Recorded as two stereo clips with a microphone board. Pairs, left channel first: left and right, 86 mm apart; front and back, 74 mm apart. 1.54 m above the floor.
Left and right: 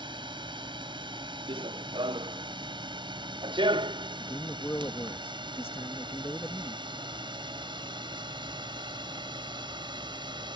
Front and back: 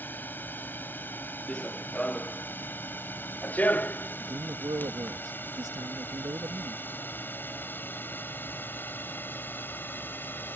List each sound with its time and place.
0.0 s a drone: 65° right
1.5 s running footsteps: 80° right; by 5.2 s 65° right
4.2 s a man speaking: 150° left